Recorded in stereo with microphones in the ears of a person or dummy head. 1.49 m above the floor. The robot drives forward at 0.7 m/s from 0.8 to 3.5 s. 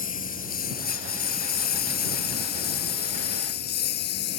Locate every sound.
0.0 s a lawn mower: 40° left (ahead or behind); by 4.4 s 55° left (ahead or behind)